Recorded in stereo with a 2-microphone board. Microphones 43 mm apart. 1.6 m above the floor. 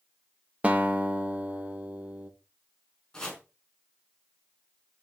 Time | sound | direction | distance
0.6 | a guitar | 35° right (ahead or behind) | 1.6 m
3.1 | chopping | 15° left (ahead or behind) | 4.5 m